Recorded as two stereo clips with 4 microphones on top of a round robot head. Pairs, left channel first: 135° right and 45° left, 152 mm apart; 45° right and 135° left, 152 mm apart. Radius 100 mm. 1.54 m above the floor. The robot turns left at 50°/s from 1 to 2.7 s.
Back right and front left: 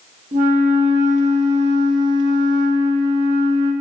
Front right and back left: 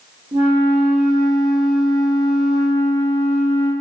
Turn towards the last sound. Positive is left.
turn(degrees=-5)